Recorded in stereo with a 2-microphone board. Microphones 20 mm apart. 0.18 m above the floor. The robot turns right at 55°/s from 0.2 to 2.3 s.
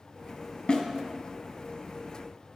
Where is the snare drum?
50° left (ahead or behind), 1.2 m; by 0.8 s 55° left (ahead or behind), 1.2 m.